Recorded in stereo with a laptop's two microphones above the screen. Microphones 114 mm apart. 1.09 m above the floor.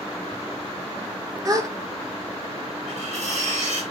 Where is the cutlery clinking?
80° right, 3.5 m.